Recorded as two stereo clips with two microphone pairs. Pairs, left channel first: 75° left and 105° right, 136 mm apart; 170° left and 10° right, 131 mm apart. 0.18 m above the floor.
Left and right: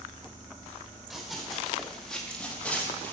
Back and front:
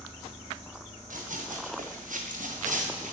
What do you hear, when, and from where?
1.1 s running footsteps: 15° right, 4 m; by 3.1 s straight ahead, 3 m